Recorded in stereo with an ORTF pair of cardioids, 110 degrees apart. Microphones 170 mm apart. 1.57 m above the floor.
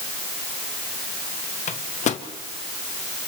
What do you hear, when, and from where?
1.7 s a microwave: 45° left, 1.2 m